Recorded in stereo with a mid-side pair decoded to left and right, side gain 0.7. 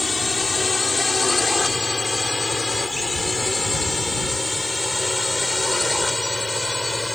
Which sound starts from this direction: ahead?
A drone, at 0.0 s.